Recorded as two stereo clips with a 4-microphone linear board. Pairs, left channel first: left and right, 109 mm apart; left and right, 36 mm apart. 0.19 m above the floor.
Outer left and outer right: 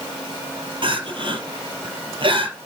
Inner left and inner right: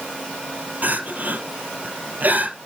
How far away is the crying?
About 3 m.